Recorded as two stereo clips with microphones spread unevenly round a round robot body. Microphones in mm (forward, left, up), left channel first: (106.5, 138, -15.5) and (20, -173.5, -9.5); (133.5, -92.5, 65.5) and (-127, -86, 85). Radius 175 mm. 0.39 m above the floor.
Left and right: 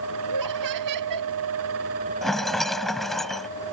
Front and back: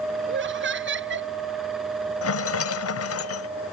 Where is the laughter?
140° right.